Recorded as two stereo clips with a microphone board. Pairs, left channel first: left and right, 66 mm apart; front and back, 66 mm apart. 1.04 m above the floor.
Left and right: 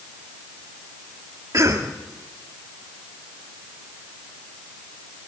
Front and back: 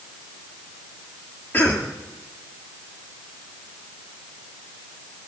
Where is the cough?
60° right, 2 m.